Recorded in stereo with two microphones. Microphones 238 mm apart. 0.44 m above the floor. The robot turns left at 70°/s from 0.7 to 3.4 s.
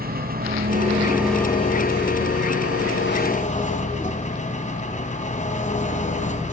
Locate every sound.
0.0 s an engine running: 140° right, 2.5 m; by 6.5 s 30° left, 2.5 m